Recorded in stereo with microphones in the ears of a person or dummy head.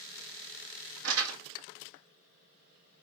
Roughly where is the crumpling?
Right.